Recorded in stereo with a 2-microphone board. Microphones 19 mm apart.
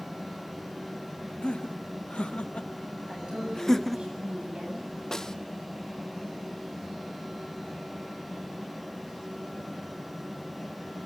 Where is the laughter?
80° left, 1.5 m; by 4.1 s 5° right (ahead or behind), 0.5 m.